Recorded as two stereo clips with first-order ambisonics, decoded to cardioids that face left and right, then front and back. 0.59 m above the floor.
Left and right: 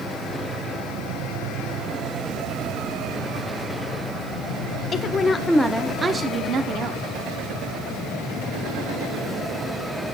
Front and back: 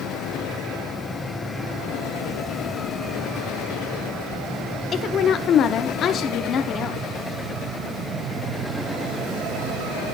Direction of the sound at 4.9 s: 40° left.